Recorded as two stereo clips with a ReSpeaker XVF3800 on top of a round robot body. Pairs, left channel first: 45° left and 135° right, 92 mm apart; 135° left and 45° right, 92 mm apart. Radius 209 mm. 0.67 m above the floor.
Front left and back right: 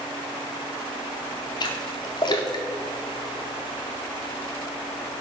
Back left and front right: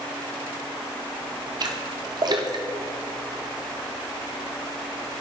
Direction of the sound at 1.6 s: Straight ahead.